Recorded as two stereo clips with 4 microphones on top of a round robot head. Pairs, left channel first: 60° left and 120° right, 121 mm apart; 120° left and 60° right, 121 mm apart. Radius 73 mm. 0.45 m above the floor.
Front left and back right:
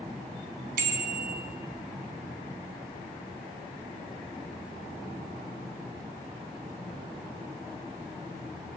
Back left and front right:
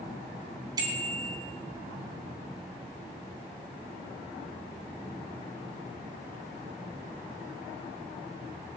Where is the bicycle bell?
115° right, 3 m.